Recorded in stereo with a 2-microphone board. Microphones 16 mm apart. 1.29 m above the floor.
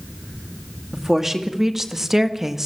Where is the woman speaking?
20° right (ahead or behind), 2.5 m.